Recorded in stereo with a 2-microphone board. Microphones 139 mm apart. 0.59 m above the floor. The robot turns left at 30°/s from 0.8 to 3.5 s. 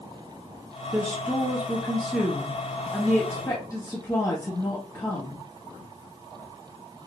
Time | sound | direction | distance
0.9 | a woman speaking | 145° right | 1.0 m